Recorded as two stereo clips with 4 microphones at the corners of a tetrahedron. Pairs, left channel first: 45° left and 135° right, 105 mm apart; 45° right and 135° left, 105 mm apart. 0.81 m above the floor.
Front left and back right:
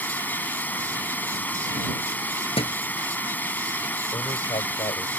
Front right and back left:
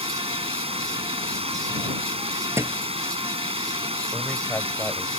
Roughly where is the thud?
Left.